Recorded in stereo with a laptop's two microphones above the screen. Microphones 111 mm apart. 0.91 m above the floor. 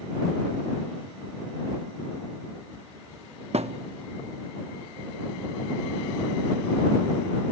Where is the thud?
70° right (ahead or behind).